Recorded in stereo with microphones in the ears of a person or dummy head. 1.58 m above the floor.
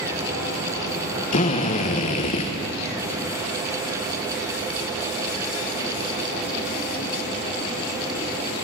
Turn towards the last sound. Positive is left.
turn(degrees=45)  # may be behind; listen again after turning